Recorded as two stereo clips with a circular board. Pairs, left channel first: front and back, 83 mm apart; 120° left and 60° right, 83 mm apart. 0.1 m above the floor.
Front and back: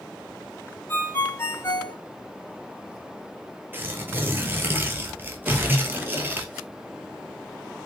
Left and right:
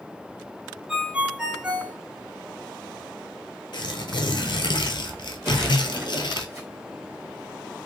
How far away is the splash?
About 1.6 m.